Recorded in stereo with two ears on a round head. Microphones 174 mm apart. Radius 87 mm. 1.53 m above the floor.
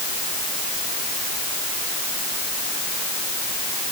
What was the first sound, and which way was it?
Only background noise.